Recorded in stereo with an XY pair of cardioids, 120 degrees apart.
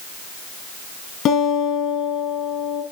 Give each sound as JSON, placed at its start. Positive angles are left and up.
{"t": 1.2, "sound": "a guitar", "azimuth_deg": 60, "distance_m": 6.5}